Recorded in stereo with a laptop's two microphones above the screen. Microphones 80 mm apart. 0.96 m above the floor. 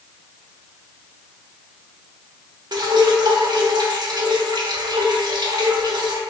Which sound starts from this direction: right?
Dripping, at 2.7 s.